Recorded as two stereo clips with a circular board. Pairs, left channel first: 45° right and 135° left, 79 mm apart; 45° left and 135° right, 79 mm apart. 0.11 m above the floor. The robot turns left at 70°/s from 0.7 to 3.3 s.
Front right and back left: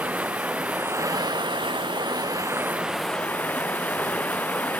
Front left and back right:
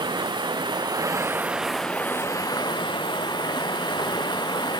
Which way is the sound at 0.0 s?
155° right.